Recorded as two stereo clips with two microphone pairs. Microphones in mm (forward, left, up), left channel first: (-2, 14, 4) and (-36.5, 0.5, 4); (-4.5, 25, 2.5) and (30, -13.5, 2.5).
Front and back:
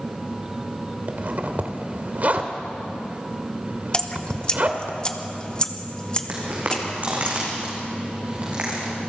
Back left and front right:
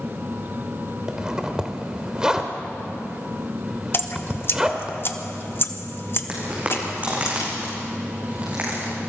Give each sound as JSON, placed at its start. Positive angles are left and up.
{"t": 1.1, "sound": "a zipper", "azimuth_deg": -120, "distance_m": 1.8}
{"t": 3.9, "sound": "dripping", "azimuth_deg": 90, "distance_m": 1.2}
{"t": 6.3, "sound": "footsteps", "azimuth_deg": -110, "distance_m": 6.5}